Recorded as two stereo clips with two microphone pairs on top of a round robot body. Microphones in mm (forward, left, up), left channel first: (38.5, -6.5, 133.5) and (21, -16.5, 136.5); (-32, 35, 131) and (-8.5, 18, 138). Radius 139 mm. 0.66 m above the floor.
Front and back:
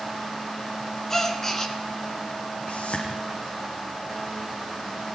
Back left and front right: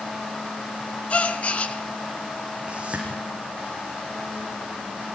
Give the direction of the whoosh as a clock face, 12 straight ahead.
11 o'clock.